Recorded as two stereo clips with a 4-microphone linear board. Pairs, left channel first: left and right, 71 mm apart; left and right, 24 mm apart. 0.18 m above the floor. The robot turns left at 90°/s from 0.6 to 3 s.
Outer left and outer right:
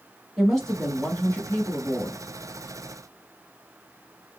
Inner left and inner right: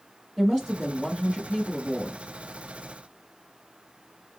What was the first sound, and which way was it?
A woman speaking, 175° left.